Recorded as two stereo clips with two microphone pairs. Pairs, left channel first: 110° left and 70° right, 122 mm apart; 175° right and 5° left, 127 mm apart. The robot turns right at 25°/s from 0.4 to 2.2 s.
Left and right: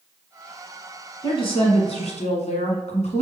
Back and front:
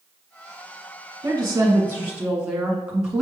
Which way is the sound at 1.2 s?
60° left.